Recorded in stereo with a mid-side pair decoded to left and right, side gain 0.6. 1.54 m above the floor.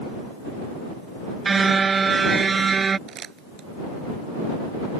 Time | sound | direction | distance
1.4 | a car horn | 25° right | ?
3.1 | crumpling | 40° right | ?